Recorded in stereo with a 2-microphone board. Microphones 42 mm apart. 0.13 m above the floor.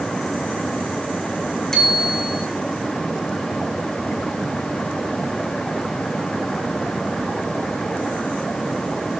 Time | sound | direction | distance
1.7 | a bicycle bell | 10° left (ahead or behind) | 6.5 m